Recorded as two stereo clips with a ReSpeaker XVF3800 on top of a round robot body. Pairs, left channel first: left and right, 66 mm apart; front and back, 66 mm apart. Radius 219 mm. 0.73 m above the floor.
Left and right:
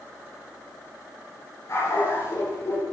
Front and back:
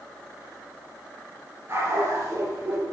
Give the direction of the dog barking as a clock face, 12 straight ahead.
8 o'clock.